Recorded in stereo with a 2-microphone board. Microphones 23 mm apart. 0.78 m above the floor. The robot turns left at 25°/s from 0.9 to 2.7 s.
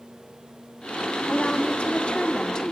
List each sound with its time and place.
1.3 s a woman speaking: 70° left, 2 m; by 2.7 s 35° left, 2 m